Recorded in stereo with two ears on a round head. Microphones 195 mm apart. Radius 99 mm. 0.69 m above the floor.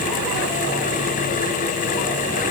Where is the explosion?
I don't hear an explosion.